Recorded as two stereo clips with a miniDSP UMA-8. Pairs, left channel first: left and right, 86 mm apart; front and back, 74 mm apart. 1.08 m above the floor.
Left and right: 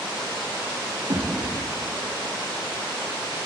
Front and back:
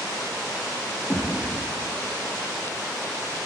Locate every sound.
1.1 s a thud: 80° right, 7 m